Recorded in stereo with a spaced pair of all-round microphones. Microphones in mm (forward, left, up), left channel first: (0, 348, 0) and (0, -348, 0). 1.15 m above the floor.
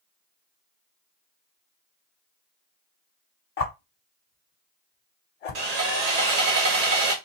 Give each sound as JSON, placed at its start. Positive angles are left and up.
{"t": 3.6, "sound": "a whoosh", "side_deg": 60, "distance_m": 0.7}
{"t": 5.5, "sound": "sawing", "side_deg": -65, "distance_m": 1.1}